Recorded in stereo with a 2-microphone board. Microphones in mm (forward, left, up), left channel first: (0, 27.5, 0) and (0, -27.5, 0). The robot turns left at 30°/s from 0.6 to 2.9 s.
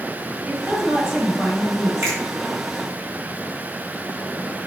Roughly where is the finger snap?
Right.